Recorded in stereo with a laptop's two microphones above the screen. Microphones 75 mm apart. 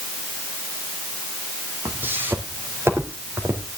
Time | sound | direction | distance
1.9 | footsteps | 25° right (ahead or behind) | 1.8 m